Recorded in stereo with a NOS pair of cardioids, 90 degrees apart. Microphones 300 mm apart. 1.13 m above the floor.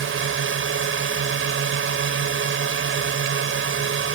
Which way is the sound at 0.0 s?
40° right.